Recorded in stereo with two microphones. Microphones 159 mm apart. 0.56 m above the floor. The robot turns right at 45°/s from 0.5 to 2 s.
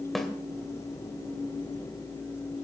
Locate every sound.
0.1 s a snare drum: centre (ahead or behind), 2 m